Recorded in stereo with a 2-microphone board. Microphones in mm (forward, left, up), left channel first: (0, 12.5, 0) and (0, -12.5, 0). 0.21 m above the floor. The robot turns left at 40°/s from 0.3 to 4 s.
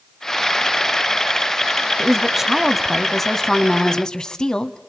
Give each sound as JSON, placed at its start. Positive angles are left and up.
{"t": 2.0, "sound": "a woman speaking", "azimuth_deg": -150, "distance_m": 1.3}